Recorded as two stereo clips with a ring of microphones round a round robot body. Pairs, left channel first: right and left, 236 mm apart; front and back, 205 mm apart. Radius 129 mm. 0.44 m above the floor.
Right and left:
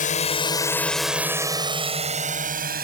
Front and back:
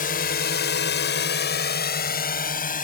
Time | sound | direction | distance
0.0 | a drone | 40° right | ?